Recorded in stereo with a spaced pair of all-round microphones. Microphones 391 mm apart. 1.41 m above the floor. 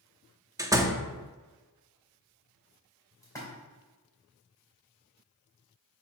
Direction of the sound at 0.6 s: 10° right (ahead or behind).